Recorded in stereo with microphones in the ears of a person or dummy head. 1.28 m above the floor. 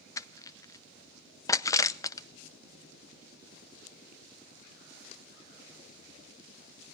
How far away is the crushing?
About 0.6 m.